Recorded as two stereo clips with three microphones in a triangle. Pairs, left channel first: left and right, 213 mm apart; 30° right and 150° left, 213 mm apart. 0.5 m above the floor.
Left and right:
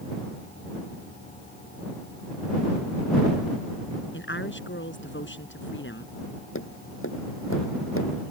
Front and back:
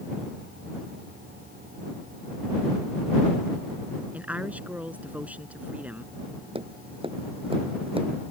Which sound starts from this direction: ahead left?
A woman speaking, at 4.1 s.